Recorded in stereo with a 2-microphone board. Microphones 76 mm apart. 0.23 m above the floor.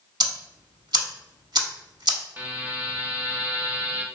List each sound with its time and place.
0.2 s ticking: 65° right (ahead or behind), 0.5 m
2.4 s a buzzer: 25° right (ahead or behind), 0.6 m